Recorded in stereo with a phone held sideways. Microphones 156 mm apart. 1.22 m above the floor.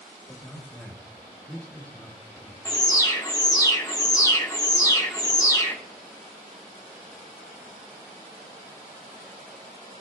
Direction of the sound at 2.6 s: 25° left (ahead or behind).